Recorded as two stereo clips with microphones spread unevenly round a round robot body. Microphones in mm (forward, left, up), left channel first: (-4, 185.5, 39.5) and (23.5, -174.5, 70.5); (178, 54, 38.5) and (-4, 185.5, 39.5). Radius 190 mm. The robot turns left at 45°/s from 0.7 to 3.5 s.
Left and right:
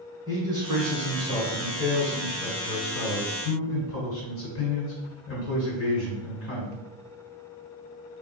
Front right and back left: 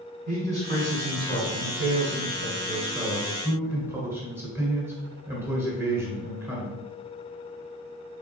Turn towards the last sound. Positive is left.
turn(degrees=70)